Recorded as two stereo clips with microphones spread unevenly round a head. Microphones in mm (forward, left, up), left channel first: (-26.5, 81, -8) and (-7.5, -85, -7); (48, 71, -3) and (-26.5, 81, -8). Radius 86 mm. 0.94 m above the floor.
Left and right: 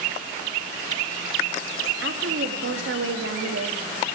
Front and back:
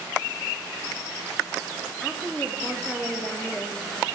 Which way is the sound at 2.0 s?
95° right.